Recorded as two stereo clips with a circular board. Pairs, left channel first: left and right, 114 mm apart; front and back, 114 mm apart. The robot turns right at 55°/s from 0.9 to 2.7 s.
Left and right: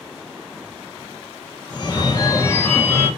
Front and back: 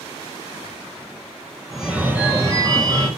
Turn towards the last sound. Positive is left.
turn(degrees=145)